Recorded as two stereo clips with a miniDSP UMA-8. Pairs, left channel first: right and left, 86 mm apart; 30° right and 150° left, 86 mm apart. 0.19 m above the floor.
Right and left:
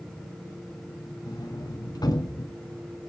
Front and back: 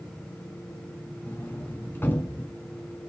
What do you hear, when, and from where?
1.3 s a sliding door: 90° right, 1.7 m